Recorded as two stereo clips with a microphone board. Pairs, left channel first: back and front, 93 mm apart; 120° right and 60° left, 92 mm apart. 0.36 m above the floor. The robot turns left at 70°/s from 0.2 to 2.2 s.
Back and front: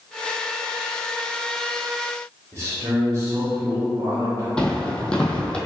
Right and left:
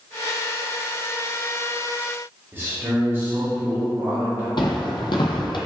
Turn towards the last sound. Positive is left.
turn(degrees=-100)